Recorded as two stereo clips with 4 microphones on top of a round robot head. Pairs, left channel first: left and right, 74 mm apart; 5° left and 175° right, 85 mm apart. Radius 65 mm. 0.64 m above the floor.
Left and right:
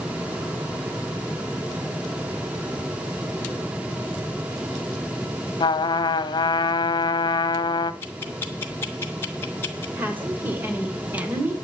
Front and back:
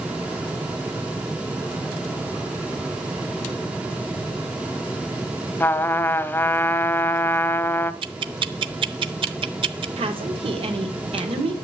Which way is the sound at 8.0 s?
160° left.